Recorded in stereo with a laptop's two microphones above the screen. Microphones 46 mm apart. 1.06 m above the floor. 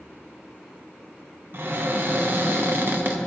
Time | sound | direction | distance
1.5 | a cupboard door | 50° right (ahead or behind) | 0.6 m